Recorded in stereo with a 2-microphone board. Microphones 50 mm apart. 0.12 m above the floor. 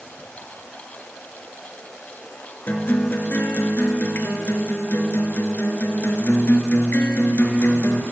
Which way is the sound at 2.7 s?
40° left (ahead or behind).